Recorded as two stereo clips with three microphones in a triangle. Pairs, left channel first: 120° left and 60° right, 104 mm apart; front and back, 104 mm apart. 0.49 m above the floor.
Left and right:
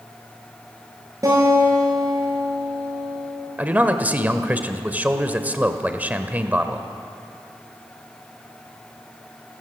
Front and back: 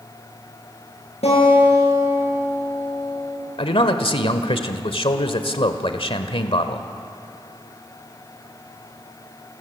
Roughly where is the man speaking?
Ahead.